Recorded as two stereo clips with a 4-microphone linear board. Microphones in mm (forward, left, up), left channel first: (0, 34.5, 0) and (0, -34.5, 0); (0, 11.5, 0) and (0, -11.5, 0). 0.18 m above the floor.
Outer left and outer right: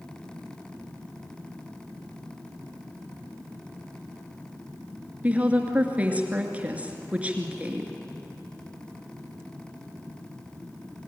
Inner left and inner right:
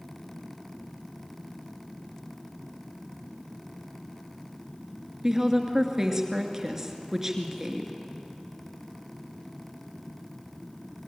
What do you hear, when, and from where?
5.2 s a woman speaking: 20° right (ahead or behind), 2.5 m